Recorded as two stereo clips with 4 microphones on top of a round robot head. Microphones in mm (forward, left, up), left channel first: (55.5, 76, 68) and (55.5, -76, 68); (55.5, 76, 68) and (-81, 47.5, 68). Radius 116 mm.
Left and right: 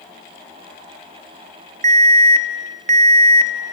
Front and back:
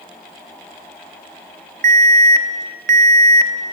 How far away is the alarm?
About 0.8 m.